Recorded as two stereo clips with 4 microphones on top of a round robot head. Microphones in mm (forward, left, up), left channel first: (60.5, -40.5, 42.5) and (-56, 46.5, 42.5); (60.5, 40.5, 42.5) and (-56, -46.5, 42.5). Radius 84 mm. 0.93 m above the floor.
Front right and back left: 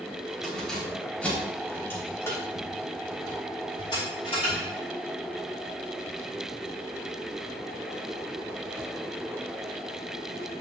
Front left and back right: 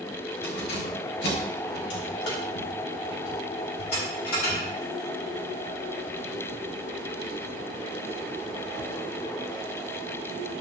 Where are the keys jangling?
50° left, 3.5 m; by 4.7 s 15° left, 3.5 m.